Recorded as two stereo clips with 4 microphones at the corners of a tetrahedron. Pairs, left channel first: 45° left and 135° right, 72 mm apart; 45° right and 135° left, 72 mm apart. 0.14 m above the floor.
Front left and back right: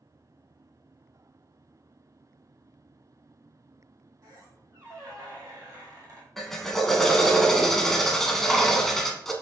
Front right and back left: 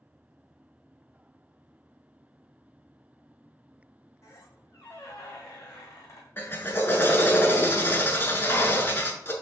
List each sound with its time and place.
4.2 s a squeak: 95° right, 1.7 m
6.4 s a drill: 40° right, 0.5 m